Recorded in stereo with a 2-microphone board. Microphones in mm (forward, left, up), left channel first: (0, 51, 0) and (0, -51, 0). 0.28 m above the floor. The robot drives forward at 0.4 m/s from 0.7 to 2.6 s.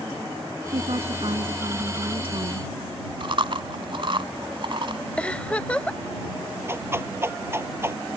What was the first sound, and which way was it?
A woman speaking, 65° right (ahead or behind).